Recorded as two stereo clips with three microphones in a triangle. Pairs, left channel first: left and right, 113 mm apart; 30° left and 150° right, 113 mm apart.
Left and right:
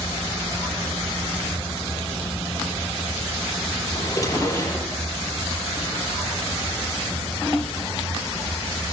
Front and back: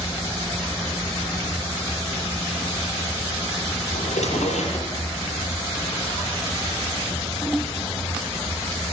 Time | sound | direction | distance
3.9 | a drawer | 30° left | 6 m